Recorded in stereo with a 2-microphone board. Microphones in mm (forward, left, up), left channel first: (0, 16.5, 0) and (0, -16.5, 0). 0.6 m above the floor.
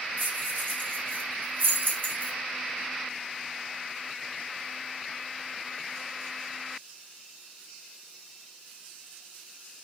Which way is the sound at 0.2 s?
80° right.